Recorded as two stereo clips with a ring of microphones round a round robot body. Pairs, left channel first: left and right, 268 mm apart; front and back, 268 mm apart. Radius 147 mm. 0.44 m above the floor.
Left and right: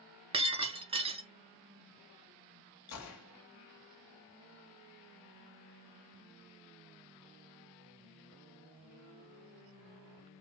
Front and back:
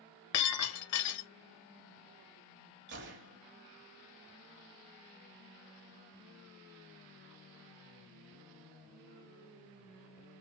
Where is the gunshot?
125° left, 1.3 m.